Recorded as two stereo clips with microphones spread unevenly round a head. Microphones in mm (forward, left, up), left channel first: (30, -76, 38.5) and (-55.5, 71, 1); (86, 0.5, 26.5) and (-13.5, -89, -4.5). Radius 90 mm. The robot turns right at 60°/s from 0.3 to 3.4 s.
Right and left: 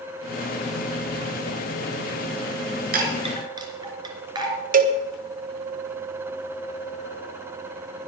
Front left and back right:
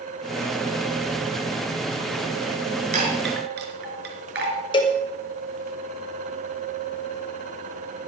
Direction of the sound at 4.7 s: 110° left.